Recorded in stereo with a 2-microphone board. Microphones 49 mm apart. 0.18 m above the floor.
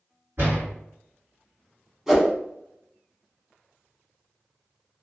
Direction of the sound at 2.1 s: 10° right (ahead or behind).